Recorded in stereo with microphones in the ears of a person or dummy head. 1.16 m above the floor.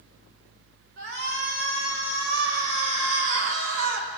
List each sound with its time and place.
1.0 s a shout: 65° right (ahead or behind), 4.5 m; by 4.1 s 70° right (ahead or behind), 3 m